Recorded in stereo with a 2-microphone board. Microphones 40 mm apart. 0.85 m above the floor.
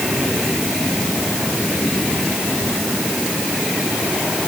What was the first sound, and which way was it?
Only background noise.